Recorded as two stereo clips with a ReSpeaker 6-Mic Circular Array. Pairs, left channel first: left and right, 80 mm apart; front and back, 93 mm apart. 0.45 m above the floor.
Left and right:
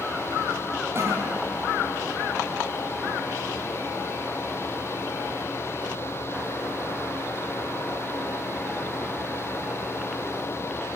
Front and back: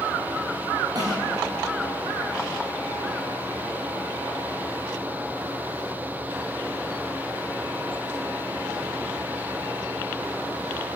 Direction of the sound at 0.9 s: 145° right.